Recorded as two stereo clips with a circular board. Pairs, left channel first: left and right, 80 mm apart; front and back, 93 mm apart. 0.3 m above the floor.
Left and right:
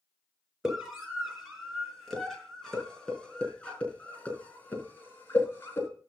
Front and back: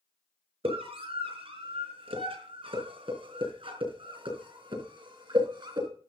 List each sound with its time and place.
0.6 s a scream: 175° right, 5 m; by 5.9 s 150° left, 4 m